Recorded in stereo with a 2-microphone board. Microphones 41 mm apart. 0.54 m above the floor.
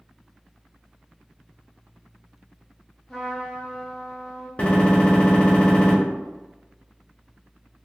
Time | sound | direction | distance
3.1 | a trumpet | 10° left (ahead or behind) | 1.1 m
4.6 | a gunshot | 30° left (ahead or behind) | 1.1 m